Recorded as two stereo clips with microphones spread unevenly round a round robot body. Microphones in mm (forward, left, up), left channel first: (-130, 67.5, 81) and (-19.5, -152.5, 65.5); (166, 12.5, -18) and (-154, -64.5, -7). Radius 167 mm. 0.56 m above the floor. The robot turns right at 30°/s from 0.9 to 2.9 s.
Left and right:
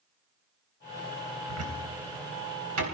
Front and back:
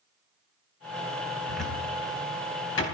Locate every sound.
1.5 s a cupboard door: 80° right, 4 m; by 2.9 s 40° right, 4 m